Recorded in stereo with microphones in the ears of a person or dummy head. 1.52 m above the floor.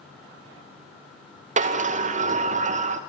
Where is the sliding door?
40° right (ahead or behind), 0.8 m.